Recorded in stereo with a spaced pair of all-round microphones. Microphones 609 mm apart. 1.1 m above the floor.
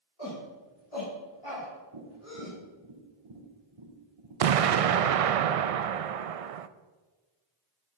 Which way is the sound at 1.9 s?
50° right (ahead or behind).